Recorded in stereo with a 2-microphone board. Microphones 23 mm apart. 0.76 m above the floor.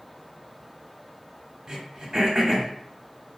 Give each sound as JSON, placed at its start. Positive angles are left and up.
{"t": 1.7, "sound": "throat clearing", "side_deg": -30, "distance_m": 1.0}